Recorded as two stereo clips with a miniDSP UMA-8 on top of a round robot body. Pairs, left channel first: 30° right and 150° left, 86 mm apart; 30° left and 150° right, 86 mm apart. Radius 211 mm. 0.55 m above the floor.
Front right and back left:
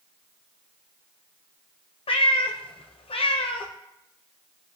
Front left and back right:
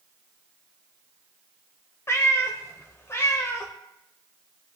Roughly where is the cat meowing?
Ahead right.